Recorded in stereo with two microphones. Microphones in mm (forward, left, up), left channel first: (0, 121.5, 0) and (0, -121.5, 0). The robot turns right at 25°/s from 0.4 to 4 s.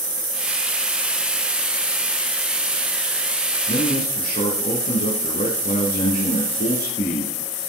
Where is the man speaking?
45° left (ahead or behind), 2 m; by 7.3 s 40° left (ahead or behind), 2 m.